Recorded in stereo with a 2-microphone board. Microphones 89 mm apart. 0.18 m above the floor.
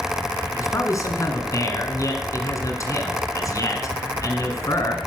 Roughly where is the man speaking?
Left.